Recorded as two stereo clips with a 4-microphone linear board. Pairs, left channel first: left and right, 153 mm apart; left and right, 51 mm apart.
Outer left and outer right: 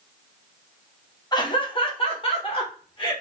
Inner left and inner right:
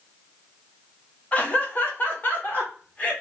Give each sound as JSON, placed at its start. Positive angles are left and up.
{"t": 1.3, "sound": "laughter", "side_deg": 30, "distance_m": 0.8}